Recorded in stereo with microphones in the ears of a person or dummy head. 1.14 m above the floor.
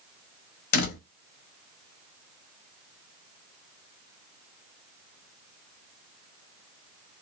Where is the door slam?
50° left (ahead or behind), 0.7 m.